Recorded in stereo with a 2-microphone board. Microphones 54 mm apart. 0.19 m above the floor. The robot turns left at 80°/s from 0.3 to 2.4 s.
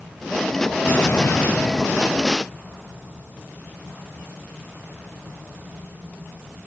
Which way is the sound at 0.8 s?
130° left.